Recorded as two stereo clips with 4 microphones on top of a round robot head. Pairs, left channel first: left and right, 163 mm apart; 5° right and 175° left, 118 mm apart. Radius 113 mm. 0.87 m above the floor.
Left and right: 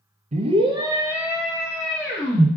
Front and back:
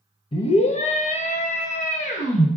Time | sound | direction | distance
0.3 | a scream | 45° right | 0.5 m